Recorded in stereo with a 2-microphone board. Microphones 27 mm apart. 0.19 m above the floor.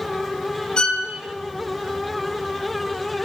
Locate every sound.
0.8 s a violin: 30° left (ahead or behind), 0.6 m